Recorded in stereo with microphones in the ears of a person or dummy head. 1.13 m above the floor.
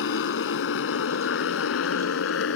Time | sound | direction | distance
0.0 | a motorcycle | 70° left (ahead or behind) | ?